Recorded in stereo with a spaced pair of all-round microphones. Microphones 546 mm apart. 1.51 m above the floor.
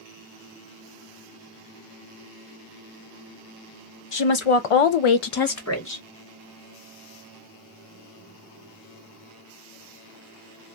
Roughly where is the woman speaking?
Left.